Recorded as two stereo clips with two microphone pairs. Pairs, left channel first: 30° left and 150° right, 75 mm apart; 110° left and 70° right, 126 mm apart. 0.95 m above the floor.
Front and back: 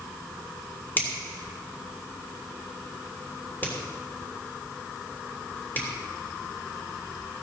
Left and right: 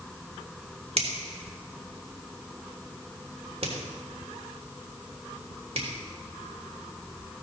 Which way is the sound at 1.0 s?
30° right.